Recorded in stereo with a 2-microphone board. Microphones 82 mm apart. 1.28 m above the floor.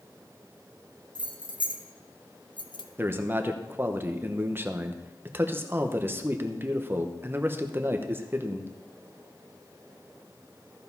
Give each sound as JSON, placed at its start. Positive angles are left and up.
{"t": 1.1, "sound": "keys jangling", "side_deg": 65, "distance_m": 1.3}
{"t": 3.0, "sound": "a man speaking", "side_deg": -25, "distance_m": 0.9}